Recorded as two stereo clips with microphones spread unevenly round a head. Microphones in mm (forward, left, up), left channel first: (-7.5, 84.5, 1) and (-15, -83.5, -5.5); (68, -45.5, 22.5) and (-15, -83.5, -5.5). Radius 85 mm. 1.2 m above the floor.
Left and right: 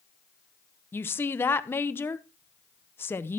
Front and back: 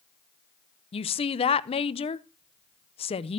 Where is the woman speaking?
10° left, 0.6 m.